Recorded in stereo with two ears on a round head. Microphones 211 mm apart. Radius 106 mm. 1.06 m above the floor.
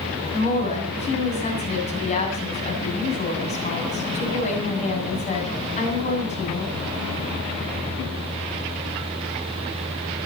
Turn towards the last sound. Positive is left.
turn(degrees=30)  # may be behind; listen again after turning